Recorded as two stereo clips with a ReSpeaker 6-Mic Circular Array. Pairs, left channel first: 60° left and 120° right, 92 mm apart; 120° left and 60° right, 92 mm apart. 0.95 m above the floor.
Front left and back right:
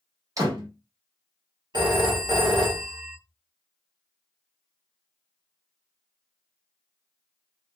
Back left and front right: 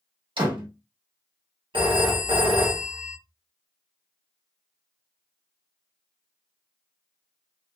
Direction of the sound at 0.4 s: 75° right.